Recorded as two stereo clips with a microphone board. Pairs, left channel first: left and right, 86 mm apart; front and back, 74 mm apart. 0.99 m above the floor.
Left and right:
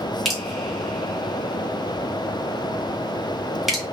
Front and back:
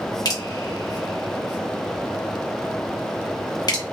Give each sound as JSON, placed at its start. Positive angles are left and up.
{"t": 0.2, "sound": "dripping", "azimuth_deg": 0, "distance_m": 1.2}